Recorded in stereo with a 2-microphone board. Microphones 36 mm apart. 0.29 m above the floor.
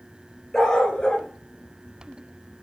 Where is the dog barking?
15° left (ahead or behind), 1.3 m; by 2.6 s 75° left (ahead or behind), 0.8 m.